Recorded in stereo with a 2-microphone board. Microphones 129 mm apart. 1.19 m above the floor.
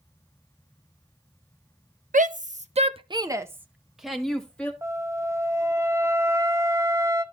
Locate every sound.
2.1 s a shout: 85° right, 0.8 m; by 4.7 s 10° left (ahead or behind), 1.4 m
4.8 s a flute: 20° right (ahead or behind), 0.7 m